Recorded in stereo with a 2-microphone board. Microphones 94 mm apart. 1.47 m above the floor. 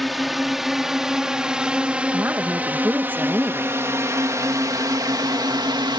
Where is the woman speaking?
20° right (ahead or behind).